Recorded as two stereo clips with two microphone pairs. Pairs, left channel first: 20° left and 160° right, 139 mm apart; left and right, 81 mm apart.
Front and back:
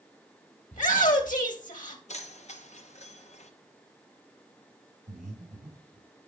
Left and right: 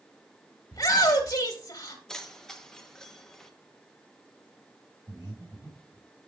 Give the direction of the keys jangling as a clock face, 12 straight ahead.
12 o'clock.